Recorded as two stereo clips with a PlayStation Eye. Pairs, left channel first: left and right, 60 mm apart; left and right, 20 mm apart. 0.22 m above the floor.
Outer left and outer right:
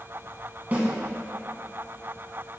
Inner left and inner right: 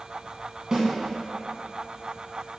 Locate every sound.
0.7 s a snare drum: 30° right (ahead or behind), 1.0 m